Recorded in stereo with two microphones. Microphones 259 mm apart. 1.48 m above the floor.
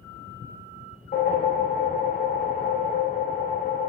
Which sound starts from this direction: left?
A whoosh, at 1.1 s.